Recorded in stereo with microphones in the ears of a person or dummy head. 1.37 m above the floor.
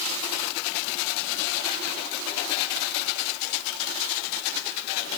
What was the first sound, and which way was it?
Only background noise.